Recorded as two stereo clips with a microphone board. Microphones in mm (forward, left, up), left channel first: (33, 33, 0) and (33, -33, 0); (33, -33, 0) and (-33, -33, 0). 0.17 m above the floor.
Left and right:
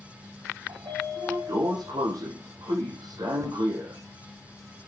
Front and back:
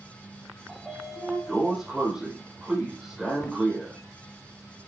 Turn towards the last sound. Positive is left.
turn(degrees=-75)